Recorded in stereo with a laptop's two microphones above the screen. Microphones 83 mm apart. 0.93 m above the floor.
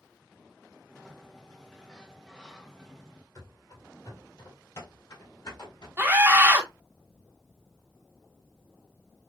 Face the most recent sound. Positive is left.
turn(degrees=-25)  # may be behind; listen again after turning